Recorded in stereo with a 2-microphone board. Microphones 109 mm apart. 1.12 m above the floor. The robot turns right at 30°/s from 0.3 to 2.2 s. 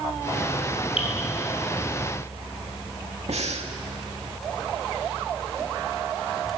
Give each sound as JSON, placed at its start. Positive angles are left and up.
{"t": 1.0, "sound": "dripping", "side_deg": 60, "distance_m": 5.5}
{"t": 3.3, "sound": "breathing", "side_deg": -80, "distance_m": 2.0}